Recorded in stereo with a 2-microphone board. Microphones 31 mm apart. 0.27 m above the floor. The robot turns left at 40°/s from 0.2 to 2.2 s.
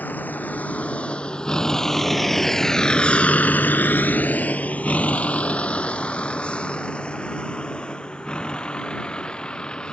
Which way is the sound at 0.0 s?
70° left (ahead or behind).